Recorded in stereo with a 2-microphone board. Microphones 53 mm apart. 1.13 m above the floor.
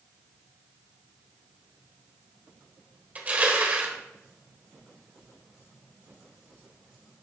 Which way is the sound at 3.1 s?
30° right (ahead or behind).